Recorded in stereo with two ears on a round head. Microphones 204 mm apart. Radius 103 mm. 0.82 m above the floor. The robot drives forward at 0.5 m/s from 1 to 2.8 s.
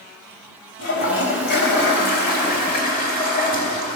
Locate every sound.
0.8 s a toilet flushing: 55° left (ahead or behind), 2.5 m; by 4.0 s 45° left (ahead or behind), 3 m